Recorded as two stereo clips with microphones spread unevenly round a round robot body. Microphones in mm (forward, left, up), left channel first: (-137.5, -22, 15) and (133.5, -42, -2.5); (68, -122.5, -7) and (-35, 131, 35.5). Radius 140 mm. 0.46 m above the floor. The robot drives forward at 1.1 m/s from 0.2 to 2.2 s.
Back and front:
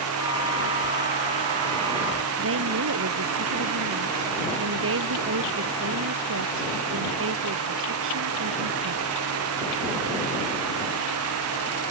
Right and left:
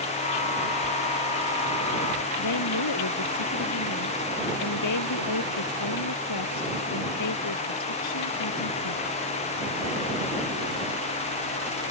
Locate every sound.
2.4 s a woman speaking: 45° right